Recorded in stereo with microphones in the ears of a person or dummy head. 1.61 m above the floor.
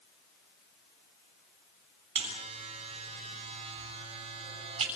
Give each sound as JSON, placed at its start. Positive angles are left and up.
{"t": 2.1, "sound": "a buzzer", "side_deg": -35, "distance_m": 7.5}